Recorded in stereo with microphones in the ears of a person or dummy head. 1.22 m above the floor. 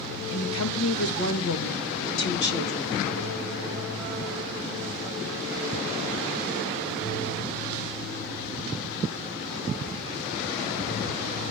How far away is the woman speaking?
About 1.9 m.